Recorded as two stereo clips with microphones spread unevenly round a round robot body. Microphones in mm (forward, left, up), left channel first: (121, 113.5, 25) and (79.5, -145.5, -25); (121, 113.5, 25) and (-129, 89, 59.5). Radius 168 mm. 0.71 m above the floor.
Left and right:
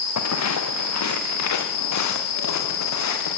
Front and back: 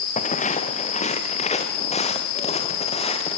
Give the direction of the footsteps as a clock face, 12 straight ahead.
10 o'clock.